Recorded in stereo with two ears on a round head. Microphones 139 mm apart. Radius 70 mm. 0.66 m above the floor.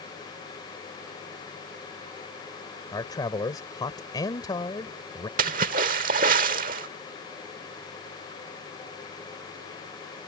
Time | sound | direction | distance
2.9 | a man speaking | 25° left (ahead or behind) | ?
5.4 | a splash | 55° right (ahead or behind) | ?